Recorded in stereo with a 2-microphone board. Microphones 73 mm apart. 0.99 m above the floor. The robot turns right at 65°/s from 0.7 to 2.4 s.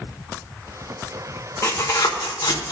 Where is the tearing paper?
35° left (ahead or behind), 1.3 m; by 2.7 s 75° left (ahead or behind), 1.3 m.